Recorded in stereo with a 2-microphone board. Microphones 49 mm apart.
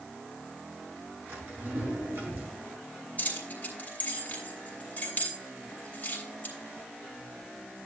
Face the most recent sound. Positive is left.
turn(degrees=35)  # may be behind; listen again after turning